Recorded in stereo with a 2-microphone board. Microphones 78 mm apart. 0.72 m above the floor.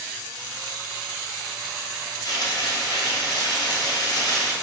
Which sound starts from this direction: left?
Frying, at 2.2 s.